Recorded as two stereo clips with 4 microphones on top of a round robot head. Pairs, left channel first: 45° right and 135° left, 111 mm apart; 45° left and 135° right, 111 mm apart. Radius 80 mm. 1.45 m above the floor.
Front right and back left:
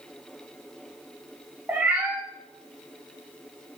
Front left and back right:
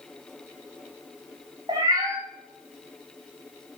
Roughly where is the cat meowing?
Behind.